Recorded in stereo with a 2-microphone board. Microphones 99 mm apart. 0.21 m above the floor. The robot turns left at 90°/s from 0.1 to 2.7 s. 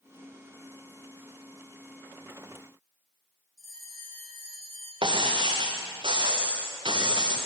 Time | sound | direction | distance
3.6 | a bell | 35° left (ahead or behind) | 8 m
5.0 | breaking glass | 55° right (ahead or behind) | 3.5 m